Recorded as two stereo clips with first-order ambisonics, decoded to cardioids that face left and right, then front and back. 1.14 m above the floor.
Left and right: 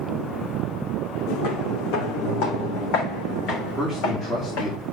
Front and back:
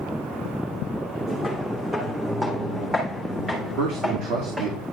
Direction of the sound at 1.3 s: 95° left.